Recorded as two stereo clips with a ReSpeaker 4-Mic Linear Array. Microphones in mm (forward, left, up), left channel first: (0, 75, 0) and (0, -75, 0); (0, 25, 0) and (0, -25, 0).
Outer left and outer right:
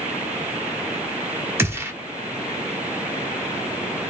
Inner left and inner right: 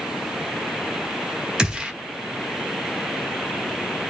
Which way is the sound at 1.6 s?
15° right (ahead or behind).